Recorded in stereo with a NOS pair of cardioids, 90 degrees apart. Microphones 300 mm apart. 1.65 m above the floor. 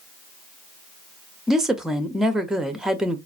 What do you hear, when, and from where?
1.5 s a woman speaking: straight ahead, 0.8 m